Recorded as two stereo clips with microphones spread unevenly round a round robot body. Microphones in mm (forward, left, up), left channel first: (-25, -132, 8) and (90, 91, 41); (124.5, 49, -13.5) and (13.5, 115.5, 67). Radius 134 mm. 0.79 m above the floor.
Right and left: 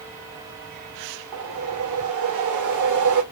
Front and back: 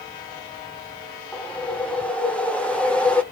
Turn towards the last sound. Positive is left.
turn(degrees=50)